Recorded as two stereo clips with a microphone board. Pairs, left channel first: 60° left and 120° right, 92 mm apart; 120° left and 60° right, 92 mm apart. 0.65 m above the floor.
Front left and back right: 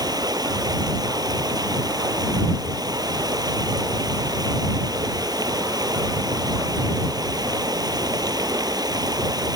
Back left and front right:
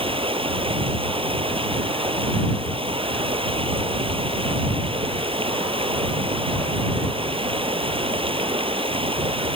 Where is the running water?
75° right.